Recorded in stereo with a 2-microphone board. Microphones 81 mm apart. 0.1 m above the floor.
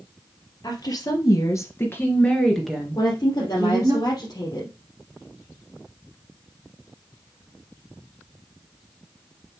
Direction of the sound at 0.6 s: 55° left (ahead or behind).